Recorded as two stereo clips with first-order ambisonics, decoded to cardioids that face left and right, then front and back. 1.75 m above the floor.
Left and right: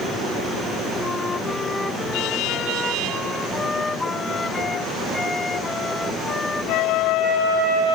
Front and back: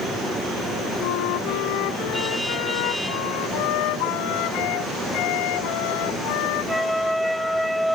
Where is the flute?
10° left.